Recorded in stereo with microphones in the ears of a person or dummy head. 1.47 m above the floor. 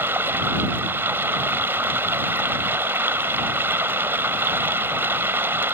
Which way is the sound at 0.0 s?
5° right (ahead or behind).